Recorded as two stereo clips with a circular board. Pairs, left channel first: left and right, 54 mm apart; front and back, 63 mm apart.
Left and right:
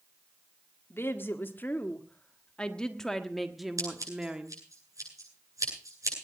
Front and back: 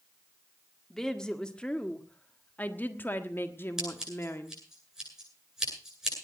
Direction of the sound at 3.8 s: 100° right.